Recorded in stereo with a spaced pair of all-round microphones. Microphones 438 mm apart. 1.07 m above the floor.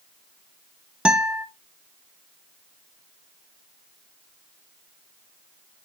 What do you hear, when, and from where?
1.1 s a guitar: centre (ahead or behind), 1.0 m